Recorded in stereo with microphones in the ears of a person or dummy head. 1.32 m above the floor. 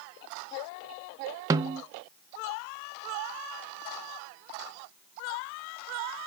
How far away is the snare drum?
About 0.5 m.